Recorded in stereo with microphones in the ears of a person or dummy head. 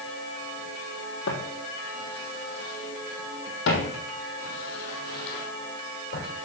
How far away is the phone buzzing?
No phone buzzing in this recording.